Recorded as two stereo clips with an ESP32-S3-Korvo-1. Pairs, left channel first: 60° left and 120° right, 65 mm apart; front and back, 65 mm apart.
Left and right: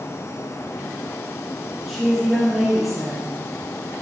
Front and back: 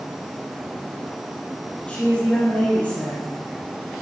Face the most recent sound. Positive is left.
turn(degrees=-30)